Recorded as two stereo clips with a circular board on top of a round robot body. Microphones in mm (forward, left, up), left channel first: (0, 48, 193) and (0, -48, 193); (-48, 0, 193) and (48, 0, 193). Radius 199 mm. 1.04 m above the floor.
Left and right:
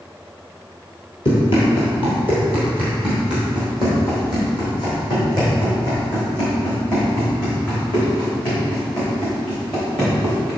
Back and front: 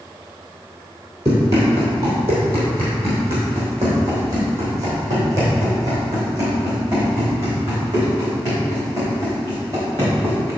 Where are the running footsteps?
65° left, 1.4 m; by 10.5 s 55° left, 6 m.